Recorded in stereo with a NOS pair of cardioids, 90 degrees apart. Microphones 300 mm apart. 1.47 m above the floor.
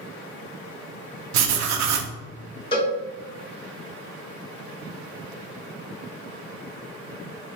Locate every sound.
1.3 s writing: 65° right, 0.6 m
2.7 s a cowbell: 20° left, 1.0 m